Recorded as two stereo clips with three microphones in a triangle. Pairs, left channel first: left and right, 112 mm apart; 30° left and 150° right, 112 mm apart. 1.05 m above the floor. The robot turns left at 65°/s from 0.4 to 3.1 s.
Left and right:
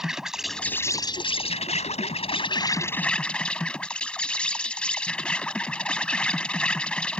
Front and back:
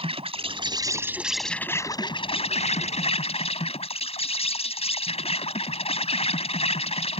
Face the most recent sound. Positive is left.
turn(degrees=10)